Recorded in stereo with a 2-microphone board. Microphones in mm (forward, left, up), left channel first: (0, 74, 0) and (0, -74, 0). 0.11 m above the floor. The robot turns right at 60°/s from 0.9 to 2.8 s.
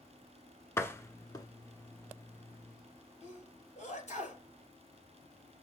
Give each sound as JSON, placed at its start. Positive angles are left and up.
{"t": 0.8, "sound": "a door slam", "side_deg": 20, "distance_m": 0.9}
{"t": 3.2, "sound": "a sneeze", "side_deg": 55, "distance_m": 2.5}